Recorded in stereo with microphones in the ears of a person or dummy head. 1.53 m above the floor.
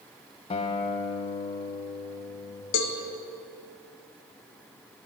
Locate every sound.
0.5 s a guitar: 30° left (ahead or behind), 0.6 m
2.7 s a cowbell: 60° left (ahead or behind), 0.7 m